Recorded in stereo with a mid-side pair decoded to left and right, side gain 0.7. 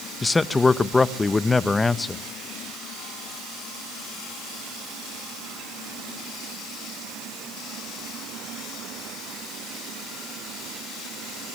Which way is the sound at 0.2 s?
15° left.